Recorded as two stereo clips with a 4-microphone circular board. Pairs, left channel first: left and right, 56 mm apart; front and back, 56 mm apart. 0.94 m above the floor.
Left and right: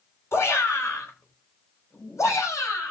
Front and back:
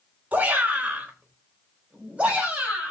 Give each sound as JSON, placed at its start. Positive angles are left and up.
{"t": 0.3, "sound": "a shout", "azimuth_deg": 120, "distance_m": 4.0}